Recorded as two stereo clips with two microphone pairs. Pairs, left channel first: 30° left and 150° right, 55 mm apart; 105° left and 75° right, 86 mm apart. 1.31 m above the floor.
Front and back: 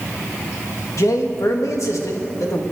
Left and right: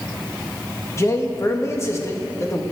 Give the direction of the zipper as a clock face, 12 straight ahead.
No zipper in this recording.